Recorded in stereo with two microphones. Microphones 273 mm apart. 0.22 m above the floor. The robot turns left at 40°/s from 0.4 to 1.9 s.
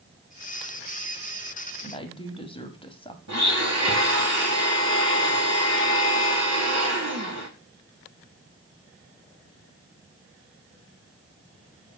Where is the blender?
65° right (ahead or behind), 2 m.